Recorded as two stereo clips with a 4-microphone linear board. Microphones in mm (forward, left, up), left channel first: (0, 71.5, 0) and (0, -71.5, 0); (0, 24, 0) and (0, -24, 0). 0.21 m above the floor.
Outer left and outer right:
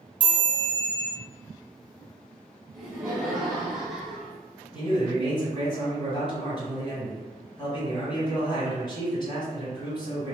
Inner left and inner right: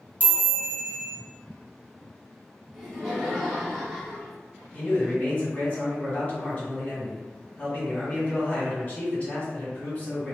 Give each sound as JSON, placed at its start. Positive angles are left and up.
{"t": 0.2, "sound": "a chime", "side_deg": 35, "distance_m": 1.3}
{"t": 2.7, "sound": "laughter", "side_deg": 0, "distance_m": 1.1}
{"t": 4.7, "sound": "a man speaking", "side_deg": 30, "distance_m": 1.6}